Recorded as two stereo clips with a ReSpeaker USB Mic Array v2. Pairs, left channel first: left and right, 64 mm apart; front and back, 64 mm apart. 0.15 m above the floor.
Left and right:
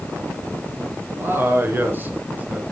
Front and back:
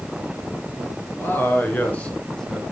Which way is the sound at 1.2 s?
50° right.